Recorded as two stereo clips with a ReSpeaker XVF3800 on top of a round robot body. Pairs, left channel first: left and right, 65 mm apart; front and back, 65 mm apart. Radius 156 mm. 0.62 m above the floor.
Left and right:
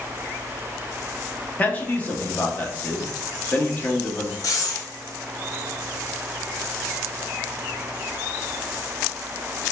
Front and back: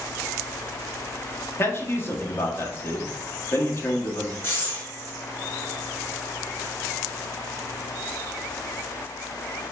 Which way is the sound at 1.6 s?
35° left.